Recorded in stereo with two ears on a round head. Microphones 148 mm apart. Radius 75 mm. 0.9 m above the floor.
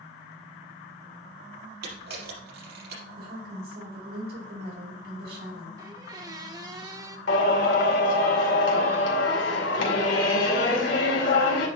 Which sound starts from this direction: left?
Singing, at 7.3 s.